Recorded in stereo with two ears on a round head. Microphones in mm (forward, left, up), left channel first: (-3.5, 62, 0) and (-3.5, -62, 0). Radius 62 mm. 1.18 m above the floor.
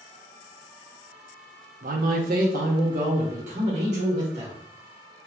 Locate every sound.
1.8 s a man speaking: 60° right (ahead or behind), 0.6 m; by 4.5 s 50° right (ahead or behind), 2 m